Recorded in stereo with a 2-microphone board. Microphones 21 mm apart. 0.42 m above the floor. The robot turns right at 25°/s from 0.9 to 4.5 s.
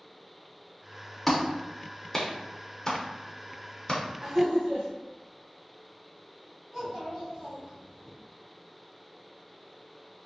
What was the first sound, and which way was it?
A clap, 10° left (ahead or behind).